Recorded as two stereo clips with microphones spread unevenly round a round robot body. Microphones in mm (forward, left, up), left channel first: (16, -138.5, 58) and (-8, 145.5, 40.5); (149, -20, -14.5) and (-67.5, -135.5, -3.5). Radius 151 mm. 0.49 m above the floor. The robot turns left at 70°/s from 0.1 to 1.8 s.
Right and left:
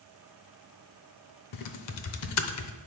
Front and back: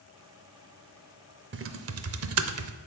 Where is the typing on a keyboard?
105° right, 0.7 m; by 2.7 s 125° right, 0.7 m.